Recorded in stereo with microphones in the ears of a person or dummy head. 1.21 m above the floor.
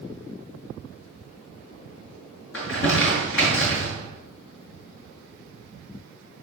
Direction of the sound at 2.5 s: 65° left (ahead or behind).